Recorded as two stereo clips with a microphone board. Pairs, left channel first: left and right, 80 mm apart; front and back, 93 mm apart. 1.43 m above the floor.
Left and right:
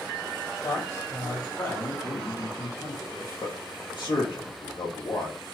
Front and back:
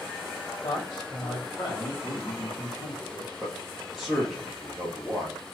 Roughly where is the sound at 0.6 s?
Ahead left.